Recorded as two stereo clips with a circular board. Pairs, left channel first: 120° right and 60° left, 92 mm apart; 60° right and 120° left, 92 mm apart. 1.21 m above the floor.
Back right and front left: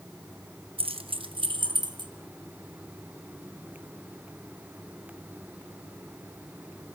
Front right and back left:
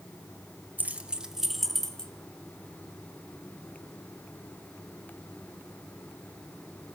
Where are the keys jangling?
50° left, 1.1 m; by 2.1 s 20° left, 1.5 m.